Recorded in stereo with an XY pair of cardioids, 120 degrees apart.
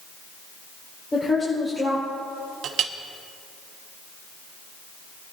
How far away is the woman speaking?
About 5.5 m.